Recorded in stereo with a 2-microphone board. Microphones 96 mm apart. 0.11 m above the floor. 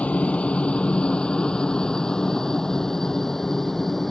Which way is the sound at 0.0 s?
15° left (ahead or behind).